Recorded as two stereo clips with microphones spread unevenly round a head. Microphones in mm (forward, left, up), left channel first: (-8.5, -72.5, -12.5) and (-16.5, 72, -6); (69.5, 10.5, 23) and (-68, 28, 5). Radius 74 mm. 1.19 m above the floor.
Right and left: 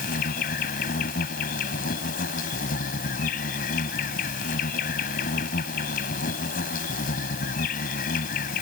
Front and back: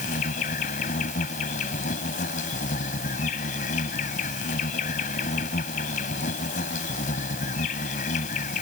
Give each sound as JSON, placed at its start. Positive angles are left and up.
{"t": 0.0, "sound": "an insect", "azimuth_deg": -50}